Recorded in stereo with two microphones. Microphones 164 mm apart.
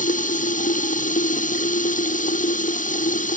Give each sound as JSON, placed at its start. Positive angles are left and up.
{"t": 0.0, "sound": "running water", "side_deg": 55}